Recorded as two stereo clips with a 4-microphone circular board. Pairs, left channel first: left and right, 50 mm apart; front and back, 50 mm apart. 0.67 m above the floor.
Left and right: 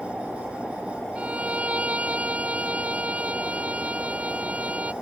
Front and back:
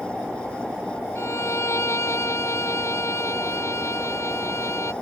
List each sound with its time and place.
1.1 s a violin: 25° right